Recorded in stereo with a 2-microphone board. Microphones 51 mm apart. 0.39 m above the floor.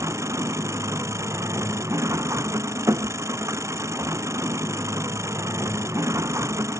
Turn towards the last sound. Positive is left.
turn(degrees=-75)  # may be behind; listen again after turning